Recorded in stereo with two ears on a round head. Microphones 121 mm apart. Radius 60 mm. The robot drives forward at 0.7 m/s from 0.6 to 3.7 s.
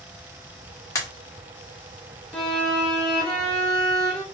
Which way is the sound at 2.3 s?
5° left (ahead or behind).